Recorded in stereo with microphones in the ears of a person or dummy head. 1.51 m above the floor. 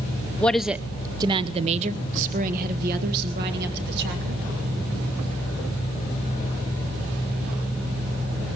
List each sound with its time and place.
0.4 s a woman speaking: 10° left (ahead or behind), 0.8 m; by 4.4 s 60° right (ahead or behind), 2.5 m